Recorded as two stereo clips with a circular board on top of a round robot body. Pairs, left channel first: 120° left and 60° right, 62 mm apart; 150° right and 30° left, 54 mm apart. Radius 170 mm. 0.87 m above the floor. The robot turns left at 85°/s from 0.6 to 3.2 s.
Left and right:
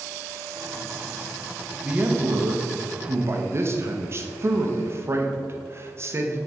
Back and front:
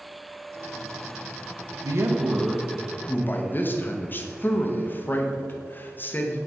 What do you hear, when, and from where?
1.8 s a man speaking: 15° left, 1.0 m; by 6.4 s 100° right, 1.0 m